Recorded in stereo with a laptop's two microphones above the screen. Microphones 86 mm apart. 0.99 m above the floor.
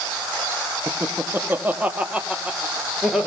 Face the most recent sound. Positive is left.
turn(degrees=-5)  # may be behind; listen again after turning